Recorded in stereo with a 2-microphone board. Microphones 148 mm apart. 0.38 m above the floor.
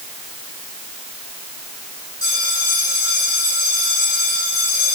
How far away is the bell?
About 6 m.